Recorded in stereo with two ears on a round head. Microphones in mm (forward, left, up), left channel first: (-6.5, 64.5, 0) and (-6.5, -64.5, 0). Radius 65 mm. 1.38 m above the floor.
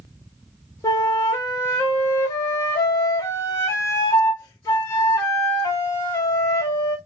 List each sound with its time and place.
0.8 s a flute: 20° left (ahead or behind), 0.6 m